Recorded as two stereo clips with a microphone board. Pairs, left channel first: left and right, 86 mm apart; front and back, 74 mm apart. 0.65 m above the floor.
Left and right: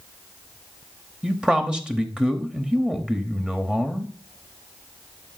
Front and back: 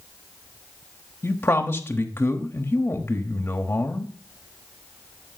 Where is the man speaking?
15° right, 1.1 m.